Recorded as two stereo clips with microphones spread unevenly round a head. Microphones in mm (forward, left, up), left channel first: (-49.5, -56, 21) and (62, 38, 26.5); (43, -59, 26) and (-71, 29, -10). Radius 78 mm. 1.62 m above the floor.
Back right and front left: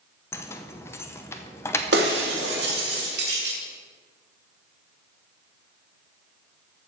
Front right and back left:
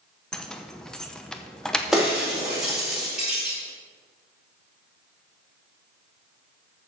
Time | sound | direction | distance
0.3 | keys jangling | 80° right | 0.6 m
1.9 | breaking glass | 50° left | 1.8 m